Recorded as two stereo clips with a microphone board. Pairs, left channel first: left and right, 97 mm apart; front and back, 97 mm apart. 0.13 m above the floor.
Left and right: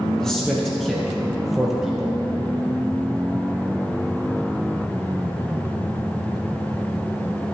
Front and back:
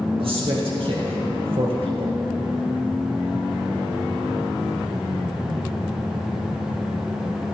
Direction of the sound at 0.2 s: 175° left.